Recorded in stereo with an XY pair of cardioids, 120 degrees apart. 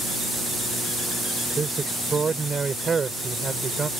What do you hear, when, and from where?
1.6 s a man speaking: 25° right